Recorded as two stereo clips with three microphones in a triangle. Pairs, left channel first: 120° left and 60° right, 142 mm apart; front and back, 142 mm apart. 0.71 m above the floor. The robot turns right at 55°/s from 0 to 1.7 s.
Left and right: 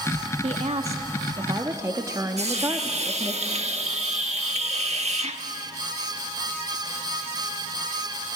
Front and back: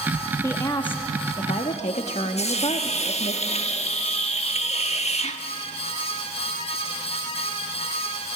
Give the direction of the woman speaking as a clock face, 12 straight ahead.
2 o'clock.